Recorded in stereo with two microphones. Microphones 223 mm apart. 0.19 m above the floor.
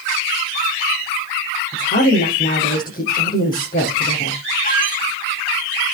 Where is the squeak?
35° left (ahead or behind), 2 m.